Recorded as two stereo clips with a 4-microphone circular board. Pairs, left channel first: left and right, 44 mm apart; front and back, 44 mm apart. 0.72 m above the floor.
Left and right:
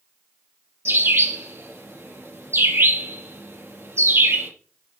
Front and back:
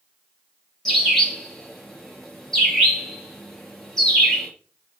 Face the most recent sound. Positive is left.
turn(degrees=-80)